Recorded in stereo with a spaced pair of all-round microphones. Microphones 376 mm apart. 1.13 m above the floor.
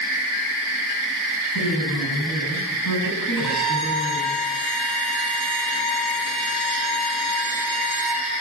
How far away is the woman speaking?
About 8 m.